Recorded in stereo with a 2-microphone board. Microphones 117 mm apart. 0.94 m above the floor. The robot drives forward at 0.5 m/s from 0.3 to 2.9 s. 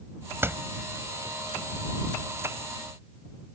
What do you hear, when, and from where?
0.4 s a door slam: 20° right (ahead or behind)